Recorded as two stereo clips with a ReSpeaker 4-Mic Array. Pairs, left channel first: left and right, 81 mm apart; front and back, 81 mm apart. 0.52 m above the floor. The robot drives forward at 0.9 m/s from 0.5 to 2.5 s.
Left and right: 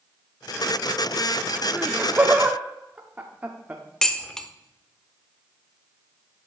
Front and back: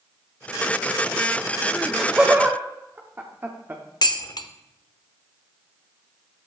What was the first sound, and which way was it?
Laughter, 65° right.